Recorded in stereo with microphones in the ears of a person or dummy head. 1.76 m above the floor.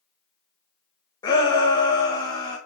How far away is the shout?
About 1.8 m.